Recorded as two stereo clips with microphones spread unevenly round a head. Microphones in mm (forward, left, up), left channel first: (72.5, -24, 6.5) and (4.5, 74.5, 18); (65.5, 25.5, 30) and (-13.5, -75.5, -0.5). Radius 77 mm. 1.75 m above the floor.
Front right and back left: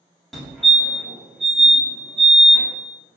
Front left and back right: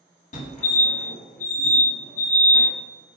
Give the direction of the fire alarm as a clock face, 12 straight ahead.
11 o'clock.